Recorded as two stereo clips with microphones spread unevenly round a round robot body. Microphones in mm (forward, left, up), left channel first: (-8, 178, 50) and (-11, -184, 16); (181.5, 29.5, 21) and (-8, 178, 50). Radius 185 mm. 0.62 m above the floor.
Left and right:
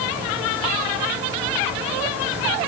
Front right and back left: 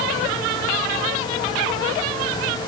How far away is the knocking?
I don't hear knocking.